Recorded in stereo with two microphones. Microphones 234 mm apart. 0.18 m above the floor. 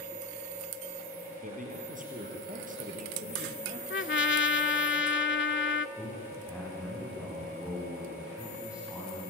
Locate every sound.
1.4 s a man speaking: 35° right (ahead or behind), 4.5 m
3.9 s a trumpet: 55° left (ahead or behind), 0.5 m
6.0 s a man speaking: 5° right (ahead or behind), 7.5 m